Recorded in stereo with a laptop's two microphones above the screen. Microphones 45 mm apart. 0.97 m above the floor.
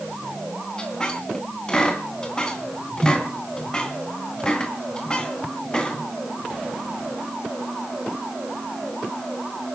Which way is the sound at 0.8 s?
20° left (ahead or behind).